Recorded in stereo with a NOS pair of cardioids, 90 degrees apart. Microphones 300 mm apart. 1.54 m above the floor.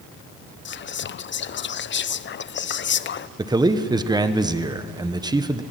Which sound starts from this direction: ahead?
A man speaking, at 3.4 s.